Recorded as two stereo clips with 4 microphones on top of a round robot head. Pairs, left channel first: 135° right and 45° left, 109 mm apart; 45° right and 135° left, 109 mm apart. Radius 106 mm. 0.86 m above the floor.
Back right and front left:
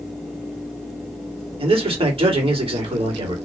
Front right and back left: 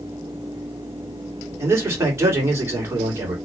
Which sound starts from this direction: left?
A man speaking, at 1.6 s.